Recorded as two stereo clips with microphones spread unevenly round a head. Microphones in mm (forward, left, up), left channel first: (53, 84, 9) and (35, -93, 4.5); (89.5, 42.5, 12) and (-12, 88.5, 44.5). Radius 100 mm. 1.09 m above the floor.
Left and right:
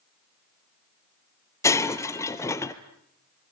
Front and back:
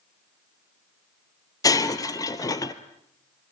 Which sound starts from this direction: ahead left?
Breaking glass, at 1.6 s.